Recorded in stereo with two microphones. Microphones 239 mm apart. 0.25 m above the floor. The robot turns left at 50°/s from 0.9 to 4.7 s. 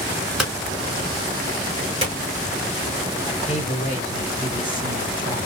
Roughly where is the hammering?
Centre.